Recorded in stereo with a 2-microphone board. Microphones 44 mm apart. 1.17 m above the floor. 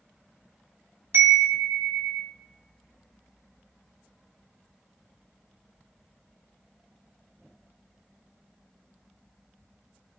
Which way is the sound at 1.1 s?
65° right (ahead or behind).